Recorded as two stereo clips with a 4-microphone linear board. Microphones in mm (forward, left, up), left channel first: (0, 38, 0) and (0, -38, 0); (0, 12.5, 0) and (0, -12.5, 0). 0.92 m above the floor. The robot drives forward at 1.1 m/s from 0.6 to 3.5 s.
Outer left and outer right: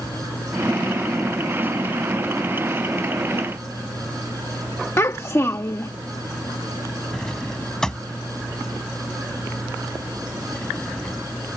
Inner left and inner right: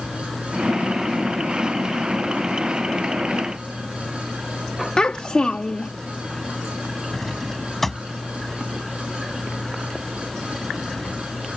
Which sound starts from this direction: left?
A child speaking, at 5.0 s.